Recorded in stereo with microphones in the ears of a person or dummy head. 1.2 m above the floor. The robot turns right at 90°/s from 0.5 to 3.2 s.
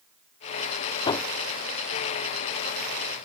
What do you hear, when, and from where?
1.1 s hammering: 30° left (ahead or behind); by 3.3 s 20° right (ahead or behind)